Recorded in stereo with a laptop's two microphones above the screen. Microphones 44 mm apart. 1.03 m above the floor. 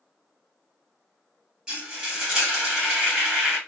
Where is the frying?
15° right (ahead or behind), 1.5 m.